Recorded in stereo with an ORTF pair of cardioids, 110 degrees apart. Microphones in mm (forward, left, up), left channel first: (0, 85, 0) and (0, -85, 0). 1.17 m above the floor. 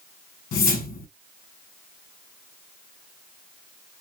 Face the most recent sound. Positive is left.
turn(degrees=60)